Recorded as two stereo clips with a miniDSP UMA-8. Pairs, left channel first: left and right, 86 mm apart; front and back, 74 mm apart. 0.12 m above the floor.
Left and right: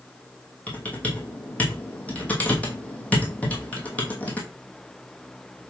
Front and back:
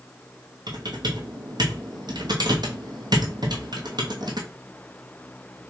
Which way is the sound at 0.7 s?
165° left.